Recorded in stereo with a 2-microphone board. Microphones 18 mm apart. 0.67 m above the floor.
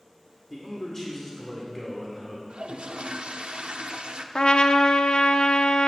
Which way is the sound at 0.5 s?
15° left (ahead or behind).